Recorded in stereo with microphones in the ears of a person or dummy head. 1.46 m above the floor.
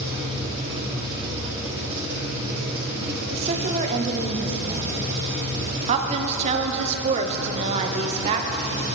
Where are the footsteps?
No footsteps in this recording.